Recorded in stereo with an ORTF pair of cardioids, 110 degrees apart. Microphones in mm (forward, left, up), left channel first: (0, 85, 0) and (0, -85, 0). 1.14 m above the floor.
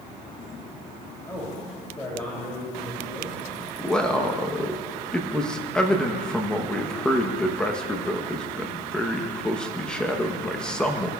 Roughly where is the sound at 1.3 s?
Ahead.